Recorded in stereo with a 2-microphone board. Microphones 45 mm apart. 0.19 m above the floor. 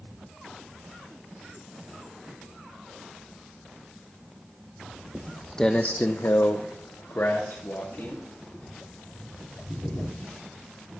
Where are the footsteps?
10° right (ahead or behind), 0.7 m; by 10.5 s 55° left (ahead or behind), 4 m.